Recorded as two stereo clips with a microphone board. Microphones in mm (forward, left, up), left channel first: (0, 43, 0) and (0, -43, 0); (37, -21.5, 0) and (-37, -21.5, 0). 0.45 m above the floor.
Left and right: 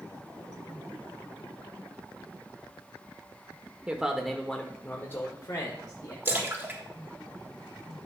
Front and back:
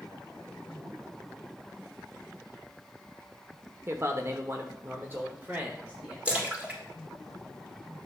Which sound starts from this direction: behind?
A man speaking, at 3.9 s.